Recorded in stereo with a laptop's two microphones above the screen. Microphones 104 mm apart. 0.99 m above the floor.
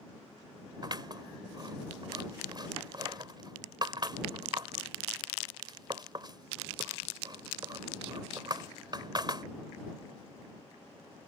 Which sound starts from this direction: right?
Scissors, at 0.8 s.